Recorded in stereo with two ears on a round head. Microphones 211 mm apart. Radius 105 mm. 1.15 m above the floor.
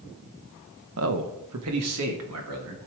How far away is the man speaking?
About 1.1 m.